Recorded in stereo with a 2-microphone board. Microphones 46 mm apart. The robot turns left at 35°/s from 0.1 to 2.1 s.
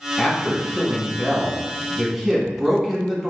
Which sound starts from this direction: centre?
A man speaking, at 0.2 s.